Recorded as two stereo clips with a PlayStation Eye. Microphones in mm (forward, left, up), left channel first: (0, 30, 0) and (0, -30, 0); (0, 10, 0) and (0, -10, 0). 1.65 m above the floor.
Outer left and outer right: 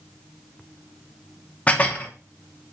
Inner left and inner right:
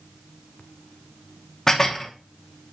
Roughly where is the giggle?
I don't hear a giggle.